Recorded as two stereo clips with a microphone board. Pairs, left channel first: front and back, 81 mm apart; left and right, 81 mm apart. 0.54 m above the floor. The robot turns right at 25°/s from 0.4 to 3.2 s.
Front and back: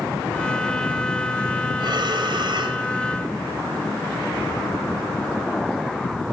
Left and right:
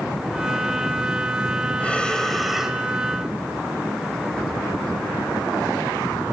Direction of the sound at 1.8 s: 160° left.